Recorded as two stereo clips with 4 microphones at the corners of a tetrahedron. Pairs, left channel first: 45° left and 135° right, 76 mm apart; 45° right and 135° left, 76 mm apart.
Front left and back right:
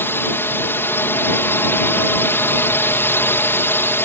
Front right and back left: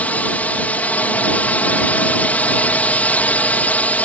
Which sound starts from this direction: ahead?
A drone, at 0.0 s.